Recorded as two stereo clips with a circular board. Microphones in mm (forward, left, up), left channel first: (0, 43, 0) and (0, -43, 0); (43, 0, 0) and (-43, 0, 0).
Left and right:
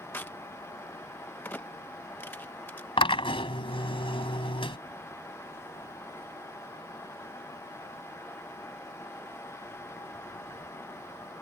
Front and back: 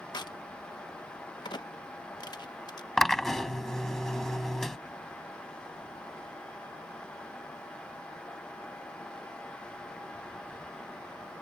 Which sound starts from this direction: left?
A drill, at 3.0 s.